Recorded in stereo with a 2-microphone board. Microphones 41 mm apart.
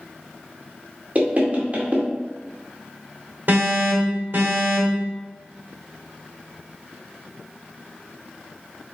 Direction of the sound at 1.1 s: 40° right (ahead or behind).